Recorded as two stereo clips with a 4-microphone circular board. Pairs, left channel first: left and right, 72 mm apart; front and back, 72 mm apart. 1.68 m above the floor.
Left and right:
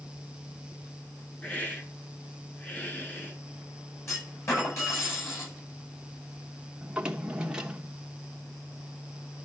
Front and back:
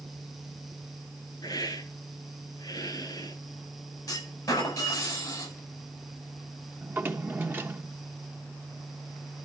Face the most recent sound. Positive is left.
turn(degrees=-155)